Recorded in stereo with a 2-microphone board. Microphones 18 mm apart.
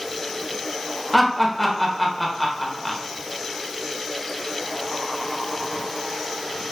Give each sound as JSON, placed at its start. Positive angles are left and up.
{"t": 1.1, "sound": "laughter", "side_deg": 10, "distance_m": 0.9}